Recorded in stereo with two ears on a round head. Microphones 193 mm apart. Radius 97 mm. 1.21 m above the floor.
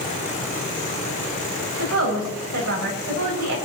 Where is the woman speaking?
85° right, 6.5 m.